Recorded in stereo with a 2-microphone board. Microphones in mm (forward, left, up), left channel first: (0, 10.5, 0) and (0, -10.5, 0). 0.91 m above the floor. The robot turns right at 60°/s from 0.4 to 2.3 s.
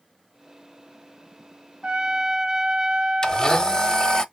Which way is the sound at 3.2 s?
30° left (ahead or behind).